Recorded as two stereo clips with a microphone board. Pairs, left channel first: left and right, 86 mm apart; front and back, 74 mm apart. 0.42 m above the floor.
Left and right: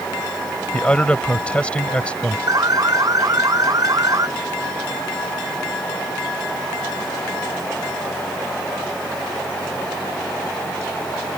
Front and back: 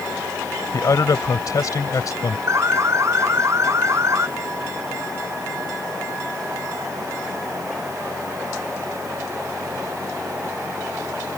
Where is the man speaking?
15° left.